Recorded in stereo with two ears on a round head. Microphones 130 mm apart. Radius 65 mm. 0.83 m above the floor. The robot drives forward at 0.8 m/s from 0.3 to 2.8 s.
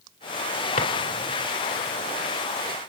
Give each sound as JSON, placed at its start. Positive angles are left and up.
{"t": 0.8, "sound": "a drawer", "side_deg": 55, "distance_m": 2.0}